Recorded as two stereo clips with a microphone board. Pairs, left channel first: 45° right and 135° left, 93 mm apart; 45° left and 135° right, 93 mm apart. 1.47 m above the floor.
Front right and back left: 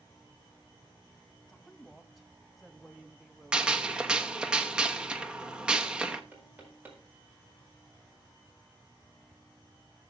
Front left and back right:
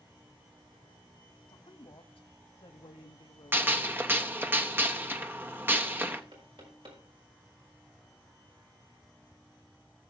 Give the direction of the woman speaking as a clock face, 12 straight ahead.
11 o'clock.